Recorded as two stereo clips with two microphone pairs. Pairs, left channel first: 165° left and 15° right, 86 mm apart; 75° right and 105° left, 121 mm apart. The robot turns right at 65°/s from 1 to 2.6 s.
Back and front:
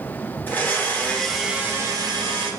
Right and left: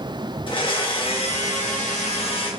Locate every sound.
0.5 s a blender: 125° right, 0.7 m; by 2.5 s 25° right, 0.7 m